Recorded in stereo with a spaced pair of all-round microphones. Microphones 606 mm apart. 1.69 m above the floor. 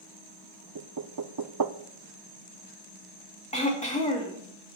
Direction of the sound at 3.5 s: 10° left (ahead or behind).